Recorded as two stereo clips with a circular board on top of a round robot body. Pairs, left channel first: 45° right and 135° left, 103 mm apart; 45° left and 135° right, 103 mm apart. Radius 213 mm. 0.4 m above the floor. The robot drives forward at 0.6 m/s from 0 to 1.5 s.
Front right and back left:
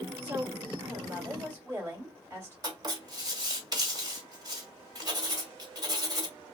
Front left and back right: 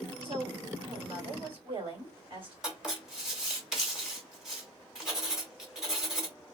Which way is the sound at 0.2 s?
155° right.